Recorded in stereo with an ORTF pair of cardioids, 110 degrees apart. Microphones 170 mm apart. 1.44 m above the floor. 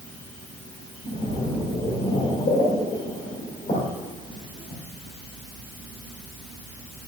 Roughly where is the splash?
Ahead left.